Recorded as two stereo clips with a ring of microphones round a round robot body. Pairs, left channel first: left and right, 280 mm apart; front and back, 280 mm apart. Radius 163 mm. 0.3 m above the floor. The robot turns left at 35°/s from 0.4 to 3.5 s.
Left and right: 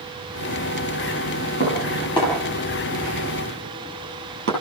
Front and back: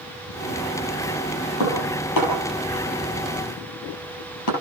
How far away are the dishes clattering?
About 7 m.